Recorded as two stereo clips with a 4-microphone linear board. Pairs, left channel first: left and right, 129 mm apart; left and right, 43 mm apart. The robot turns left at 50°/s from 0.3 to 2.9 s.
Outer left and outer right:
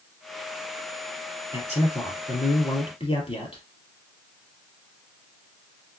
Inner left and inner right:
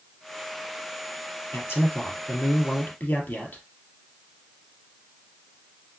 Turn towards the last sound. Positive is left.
turn(degrees=55)